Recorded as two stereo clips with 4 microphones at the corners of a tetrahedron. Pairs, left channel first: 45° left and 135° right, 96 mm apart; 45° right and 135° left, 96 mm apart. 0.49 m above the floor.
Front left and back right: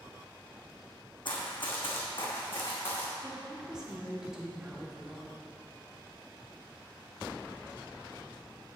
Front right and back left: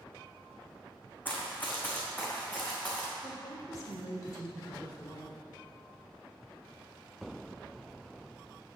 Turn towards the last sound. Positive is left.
turn(degrees=-55)